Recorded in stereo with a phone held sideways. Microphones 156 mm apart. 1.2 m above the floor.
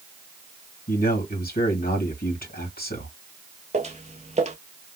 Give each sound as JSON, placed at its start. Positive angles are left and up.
{"t": 0.9, "sound": "a man speaking", "side_deg": 75, "distance_m": 2.0}
{"t": 3.7, "sound": "footsteps", "side_deg": -45, "distance_m": 1.7}